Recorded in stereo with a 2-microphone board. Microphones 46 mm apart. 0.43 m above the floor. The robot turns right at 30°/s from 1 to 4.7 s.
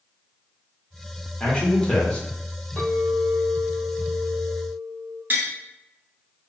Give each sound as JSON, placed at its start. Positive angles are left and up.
{"t": 1.4, "sound": "a man speaking", "side_deg": 25, "distance_m": 0.9}
{"t": 2.8, "sound": "a clink", "azimuth_deg": 145, "distance_m": 0.8}
{"t": 5.3, "sound": "tapping", "side_deg": -45, "distance_m": 0.7}